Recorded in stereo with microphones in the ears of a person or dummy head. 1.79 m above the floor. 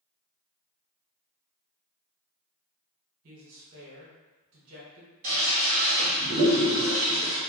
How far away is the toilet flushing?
About 1.5 m.